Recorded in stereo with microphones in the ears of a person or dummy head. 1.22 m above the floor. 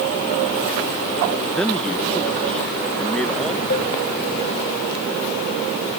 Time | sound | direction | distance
1.5 | a man speaking | 5° left (ahead or behind) | ?
3.7 | a cowbell | 40° left (ahead or behind) | ?